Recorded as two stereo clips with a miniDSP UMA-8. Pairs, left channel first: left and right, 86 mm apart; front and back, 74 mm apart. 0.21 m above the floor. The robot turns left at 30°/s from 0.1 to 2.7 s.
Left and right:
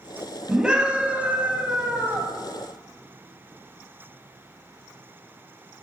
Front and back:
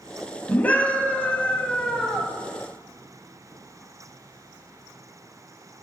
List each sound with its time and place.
0.5 s a scream: 25° right, 1.0 m; by 2.3 s 75° right, 1.0 m